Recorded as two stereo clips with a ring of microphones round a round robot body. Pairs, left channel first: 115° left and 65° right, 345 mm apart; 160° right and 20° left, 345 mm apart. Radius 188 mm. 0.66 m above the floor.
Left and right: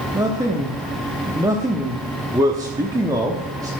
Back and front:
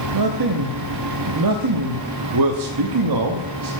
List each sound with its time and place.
0.1 s a man speaking: 10° left, 0.9 m